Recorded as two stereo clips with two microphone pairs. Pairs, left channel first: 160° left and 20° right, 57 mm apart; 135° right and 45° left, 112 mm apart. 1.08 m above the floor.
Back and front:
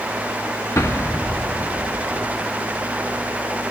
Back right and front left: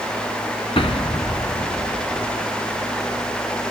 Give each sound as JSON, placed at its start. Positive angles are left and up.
{"t": 0.8, "sound": "an explosion", "azimuth_deg": -170, "distance_m": 0.8}